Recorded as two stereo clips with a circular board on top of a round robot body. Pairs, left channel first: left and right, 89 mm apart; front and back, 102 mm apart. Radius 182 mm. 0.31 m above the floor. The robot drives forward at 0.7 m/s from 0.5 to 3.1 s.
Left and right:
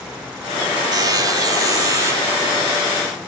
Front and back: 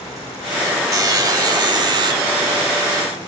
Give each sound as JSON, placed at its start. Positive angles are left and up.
{"t": 0.9, "sound": "a buzzer", "azimuth_deg": -130, "distance_m": 2.5}